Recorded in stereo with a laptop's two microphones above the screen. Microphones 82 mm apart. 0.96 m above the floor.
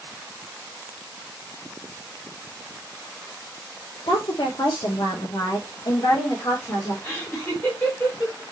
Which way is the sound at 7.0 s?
25° left (ahead or behind).